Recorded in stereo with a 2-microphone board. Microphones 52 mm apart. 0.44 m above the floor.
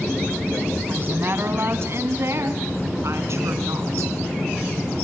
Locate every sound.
0.9 s a woman speaking: 45° right (ahead or behind), 3.5 m; by 4.1 s 70° right (ahead or behind), 5.5 m